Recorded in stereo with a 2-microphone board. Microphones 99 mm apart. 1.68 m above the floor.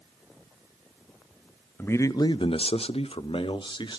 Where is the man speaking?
20° left (ahead or behind), 0.7 m; by 4.0 s 50° left (ahead or behind), 1.3 m.